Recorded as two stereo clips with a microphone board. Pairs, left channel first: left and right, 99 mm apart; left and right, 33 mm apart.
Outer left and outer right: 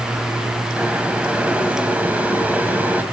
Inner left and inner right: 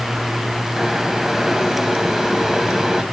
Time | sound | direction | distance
0.8 | boiling | 15° right (ahead or behind) | 1.5 m